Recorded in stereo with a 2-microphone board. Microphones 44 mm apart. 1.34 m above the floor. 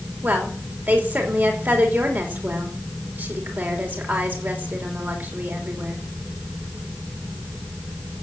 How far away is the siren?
I don't hear a siren.